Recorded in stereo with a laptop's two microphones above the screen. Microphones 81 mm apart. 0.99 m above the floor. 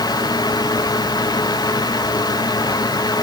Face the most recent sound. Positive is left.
turn(degrees=55)  # may be behind; listen again after turning